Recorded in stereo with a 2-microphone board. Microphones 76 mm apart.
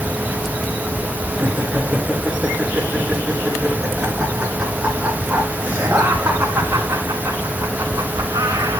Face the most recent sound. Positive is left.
turn(degrees=-60)  # may be behind; listen again after turning